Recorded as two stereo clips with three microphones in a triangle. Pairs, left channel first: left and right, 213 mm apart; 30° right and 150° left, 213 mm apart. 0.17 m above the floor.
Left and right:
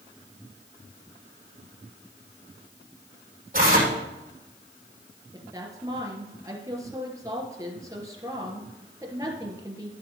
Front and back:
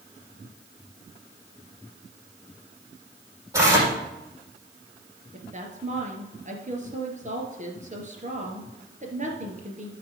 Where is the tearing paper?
135° right, 5 m.